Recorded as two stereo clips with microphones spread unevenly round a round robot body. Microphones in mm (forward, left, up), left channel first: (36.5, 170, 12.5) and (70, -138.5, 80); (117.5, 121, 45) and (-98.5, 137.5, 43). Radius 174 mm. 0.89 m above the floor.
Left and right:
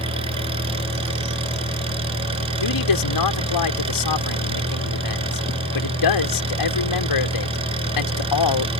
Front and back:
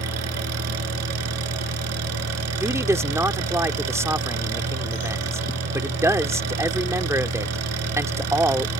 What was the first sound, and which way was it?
An engine running, 160° right.